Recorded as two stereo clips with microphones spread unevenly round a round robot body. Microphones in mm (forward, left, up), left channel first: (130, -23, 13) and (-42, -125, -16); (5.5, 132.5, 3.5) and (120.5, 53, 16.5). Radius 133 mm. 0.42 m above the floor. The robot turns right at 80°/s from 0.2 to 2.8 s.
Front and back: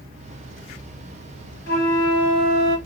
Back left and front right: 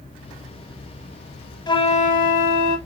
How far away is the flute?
About 0.6 m.